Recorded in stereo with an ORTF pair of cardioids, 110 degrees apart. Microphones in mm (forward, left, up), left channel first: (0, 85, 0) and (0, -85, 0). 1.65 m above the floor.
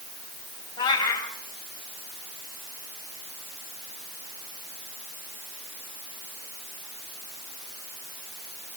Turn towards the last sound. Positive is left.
turn(degrees=25)